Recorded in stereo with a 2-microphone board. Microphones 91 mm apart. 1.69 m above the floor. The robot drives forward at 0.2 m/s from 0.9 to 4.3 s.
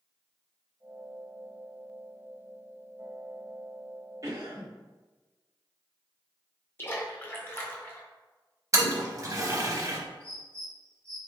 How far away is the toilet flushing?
About 0.5 m.